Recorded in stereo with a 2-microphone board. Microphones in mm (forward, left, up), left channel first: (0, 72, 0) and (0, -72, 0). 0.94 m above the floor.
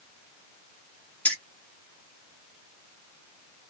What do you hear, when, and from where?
1.2 s keys jangling: 10° left (ahead or behind), 1.4 m